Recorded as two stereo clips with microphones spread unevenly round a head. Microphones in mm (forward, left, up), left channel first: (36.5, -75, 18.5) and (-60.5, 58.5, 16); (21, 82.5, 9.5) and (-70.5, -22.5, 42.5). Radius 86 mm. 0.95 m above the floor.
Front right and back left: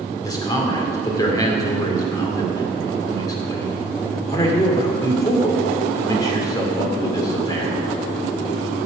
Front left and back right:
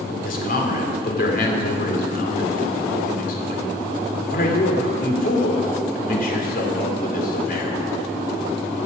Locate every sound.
0.2 s a man speaking: 15° left, 2.5 m